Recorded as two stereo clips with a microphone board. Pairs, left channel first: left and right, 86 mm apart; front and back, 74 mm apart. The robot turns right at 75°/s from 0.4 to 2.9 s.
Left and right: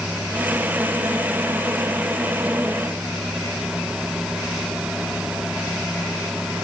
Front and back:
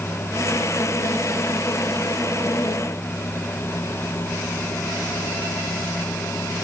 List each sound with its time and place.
Only background noise.